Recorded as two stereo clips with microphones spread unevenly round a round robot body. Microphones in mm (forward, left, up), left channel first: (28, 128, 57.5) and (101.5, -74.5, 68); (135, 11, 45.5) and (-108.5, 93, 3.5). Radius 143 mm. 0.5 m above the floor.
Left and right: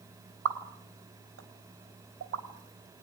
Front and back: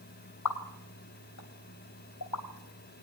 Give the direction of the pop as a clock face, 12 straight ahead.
2 o'clock.